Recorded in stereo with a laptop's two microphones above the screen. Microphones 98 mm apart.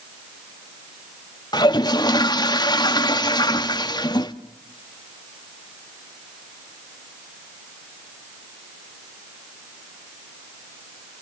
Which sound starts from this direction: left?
A toilet flushing, at 1.5 s.